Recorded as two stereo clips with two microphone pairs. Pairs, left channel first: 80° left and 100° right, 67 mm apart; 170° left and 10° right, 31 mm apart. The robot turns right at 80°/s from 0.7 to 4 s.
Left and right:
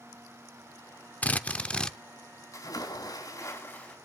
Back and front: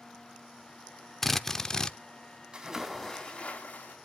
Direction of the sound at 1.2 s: 90° left.